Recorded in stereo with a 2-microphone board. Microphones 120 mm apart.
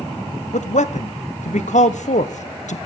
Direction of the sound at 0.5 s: 80° left.